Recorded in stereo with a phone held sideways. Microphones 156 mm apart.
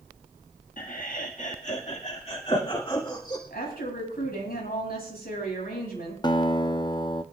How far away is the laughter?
About 1.4 m.